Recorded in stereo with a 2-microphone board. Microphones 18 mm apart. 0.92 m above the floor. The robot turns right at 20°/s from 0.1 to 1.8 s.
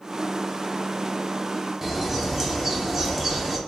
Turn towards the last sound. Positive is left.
turn(degrees=-20)  # may be behind; listen again after turning